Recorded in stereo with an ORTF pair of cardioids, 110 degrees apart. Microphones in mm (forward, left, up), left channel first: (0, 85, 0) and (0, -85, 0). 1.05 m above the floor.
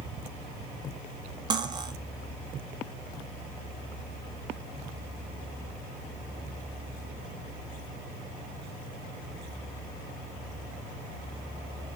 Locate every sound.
1.5 s cutlery clinking: 25° right, 0.6 m